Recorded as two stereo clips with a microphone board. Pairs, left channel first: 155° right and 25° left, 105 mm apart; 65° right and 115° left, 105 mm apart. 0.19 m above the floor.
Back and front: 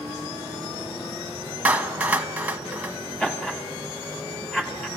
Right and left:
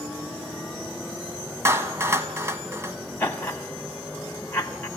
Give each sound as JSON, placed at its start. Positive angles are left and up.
{"t": 1.6, "sound": "a clap", "azimuth_deg": 85, "distance_m": 1.2}
{"t": 3.2, "sound": "laughter", "azimuth_deg": -95, "distance_m": 1.1}